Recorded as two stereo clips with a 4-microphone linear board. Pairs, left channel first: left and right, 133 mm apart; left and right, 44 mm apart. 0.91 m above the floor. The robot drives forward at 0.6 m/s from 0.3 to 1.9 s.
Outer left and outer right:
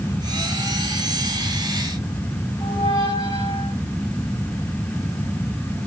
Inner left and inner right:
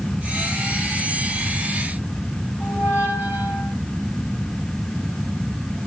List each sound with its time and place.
2.6 s a squeak: 45° right (ahead or behind), 5.5 m